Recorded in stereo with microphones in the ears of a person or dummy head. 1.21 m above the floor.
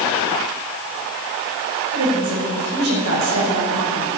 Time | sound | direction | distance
1.9 | a woman speaking | 80° right | 5 m